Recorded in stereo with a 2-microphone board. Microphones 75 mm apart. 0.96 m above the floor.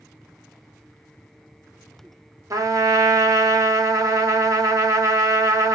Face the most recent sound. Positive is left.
turn(degrees=-50)  # may be behind; listen again after turning